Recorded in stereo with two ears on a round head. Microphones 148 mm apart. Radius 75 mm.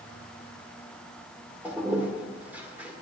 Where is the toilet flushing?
10° right (ahead or behind), 1.9 m.